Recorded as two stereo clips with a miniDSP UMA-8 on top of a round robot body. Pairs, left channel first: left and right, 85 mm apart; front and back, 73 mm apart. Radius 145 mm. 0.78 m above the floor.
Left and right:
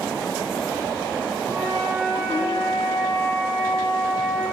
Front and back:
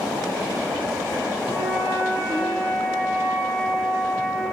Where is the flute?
35° right, 1.3 m.